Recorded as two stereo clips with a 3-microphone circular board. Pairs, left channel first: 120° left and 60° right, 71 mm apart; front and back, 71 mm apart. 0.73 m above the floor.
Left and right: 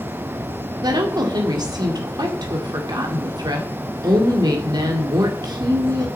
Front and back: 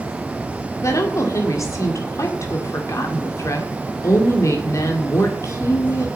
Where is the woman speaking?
45° right, 1.8 m.